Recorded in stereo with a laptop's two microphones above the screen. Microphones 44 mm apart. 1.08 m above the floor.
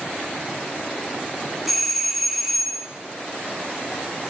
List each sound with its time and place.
1.7 s a doorbell: centre (ahead or behind), 0.5 m